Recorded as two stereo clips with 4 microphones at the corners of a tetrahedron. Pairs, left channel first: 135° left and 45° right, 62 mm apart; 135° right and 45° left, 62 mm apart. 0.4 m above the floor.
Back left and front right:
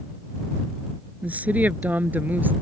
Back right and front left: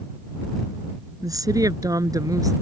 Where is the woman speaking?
20° left; by 2.5 s 15° left.